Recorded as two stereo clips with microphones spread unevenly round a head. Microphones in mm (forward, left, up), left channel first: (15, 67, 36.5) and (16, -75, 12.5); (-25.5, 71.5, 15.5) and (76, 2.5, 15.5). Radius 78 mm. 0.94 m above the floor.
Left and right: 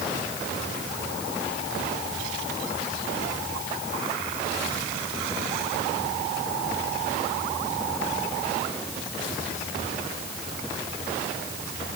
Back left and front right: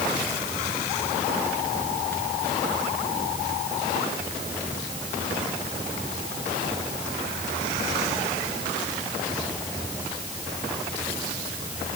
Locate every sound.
Only background noise.